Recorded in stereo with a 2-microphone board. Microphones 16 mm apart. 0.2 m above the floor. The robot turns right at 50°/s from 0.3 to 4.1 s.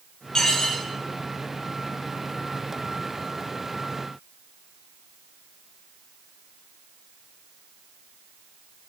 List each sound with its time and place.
0.3 s dishes clattering: 55° left (ahead or behind), 3.5 m; by 0.8 s 75° left (ahead or behind), 3.5 m